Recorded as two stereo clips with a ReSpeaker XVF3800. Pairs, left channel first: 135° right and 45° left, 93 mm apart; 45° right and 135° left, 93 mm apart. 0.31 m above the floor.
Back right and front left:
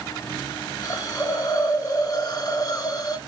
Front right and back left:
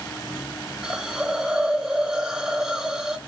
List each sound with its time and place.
0.8 s a hiss: 145° right, 0.5 m